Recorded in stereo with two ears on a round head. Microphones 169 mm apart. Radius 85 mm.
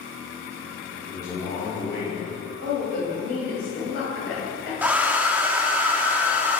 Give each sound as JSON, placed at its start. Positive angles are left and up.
{"t": 1.1, "sound": "a man speaking", "side_deg": 20, "distance_m": 1.6}
{"t": 2.6, "sound": "a woman speaking", "side_deg": 65, "distance_m": 2.5}
{"t": 4.8, "sound": "a hair dryer", "side_deg": -10, "distance_m": 0.5}